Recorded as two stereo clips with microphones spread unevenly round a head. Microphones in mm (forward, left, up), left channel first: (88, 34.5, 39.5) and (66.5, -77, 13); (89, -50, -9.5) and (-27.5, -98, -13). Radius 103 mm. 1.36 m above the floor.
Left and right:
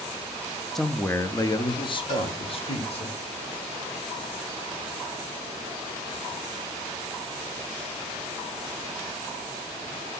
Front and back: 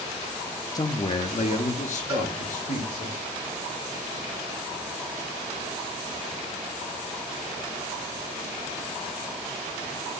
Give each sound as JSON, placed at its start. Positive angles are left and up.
{"t": 0.8, "sound": "a man speaking", "azimuth_deg": -25, "distance_m": 0.6}
{"t": 2.1, "sound": "a cowbell", "azimuth_deg": 100, "distance_m": 4.5}